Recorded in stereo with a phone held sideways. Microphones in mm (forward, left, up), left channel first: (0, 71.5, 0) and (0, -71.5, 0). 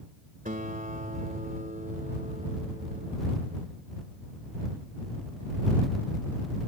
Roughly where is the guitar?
Right.